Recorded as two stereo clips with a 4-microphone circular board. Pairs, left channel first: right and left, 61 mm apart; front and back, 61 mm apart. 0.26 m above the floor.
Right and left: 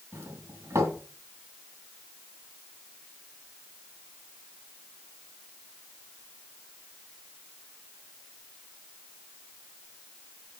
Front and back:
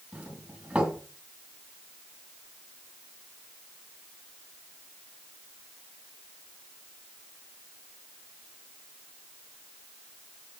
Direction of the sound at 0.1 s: 110° left.